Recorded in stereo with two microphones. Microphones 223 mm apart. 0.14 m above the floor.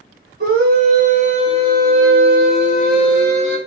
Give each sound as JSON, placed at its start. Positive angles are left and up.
{"t": 0.4, "sound": "a scream", "side_deg": -45, "distance_m": 1.7}